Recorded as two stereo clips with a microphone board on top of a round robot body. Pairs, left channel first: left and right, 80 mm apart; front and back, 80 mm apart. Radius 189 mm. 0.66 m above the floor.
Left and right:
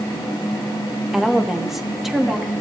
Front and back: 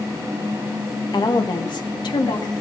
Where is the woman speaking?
5° right, 1.4 m.